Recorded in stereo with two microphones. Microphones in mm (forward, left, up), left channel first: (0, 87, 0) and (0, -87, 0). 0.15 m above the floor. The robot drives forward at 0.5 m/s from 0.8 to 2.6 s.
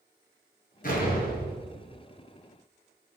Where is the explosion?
55° left (ahead or behind), 0.9 m; by 2.0 s 60° left (ahead or behind), 0.8 m.